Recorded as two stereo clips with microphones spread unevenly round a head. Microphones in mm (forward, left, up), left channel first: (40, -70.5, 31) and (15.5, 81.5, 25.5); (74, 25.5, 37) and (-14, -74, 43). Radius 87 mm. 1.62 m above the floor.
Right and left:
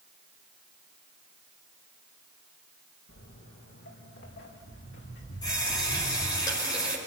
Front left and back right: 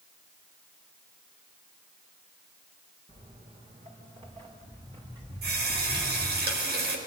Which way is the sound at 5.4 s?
150° right.